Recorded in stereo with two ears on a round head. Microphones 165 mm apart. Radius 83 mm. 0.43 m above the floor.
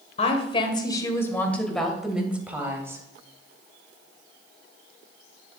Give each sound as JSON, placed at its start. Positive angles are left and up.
{"t": 0.2, "sound": "a woman speaking", "side_deg": 35, "distance_m": 2.0}